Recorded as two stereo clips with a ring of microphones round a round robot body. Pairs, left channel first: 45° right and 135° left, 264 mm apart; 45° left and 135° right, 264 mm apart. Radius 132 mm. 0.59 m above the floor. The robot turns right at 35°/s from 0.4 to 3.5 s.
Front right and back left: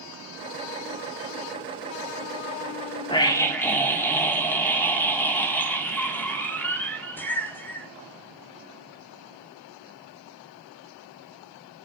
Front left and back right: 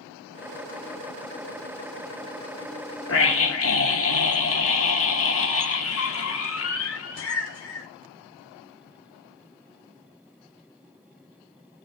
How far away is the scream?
About 1.4 m.